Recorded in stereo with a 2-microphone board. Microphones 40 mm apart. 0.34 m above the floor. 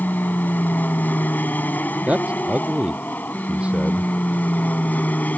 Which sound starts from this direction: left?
An aircraft, at 0.0 s.